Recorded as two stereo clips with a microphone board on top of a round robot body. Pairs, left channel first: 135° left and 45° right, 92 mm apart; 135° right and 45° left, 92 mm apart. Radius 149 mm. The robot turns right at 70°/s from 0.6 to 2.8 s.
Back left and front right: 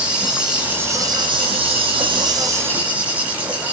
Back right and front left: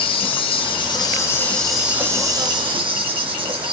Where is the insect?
125° right, 0.8 m; by 3.7 s 30° left, 0.8 m.